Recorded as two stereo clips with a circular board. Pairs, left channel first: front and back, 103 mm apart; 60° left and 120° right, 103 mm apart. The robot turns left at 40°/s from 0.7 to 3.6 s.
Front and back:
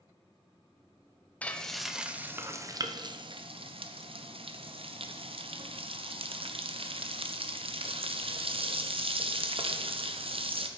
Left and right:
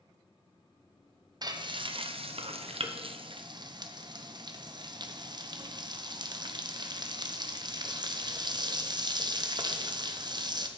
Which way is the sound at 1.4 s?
75° right.